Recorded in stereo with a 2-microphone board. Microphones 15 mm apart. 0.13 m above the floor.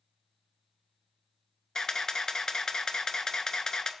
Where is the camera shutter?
50° left (ahead or behind), 0.5 m.